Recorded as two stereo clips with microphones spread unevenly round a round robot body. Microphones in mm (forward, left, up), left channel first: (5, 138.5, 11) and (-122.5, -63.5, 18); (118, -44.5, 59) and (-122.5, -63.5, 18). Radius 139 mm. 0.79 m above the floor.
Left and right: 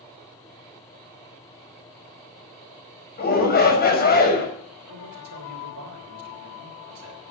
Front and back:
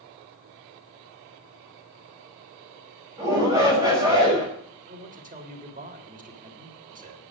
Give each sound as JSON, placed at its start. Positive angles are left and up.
{"t": 3.2, "sound": "a shout", "azimuth_deg": 105, "distance_m": 5.5}
{"t": 4.9, "sound": "a man speaking", "azimuth_deg": -120, "distance_m": 3.0}